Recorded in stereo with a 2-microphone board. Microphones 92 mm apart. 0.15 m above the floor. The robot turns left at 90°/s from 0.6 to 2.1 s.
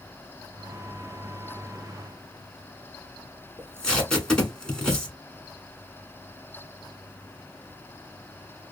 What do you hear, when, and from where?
3.6 s tape being pulled: 10° left (ahead or behind), 1.2 m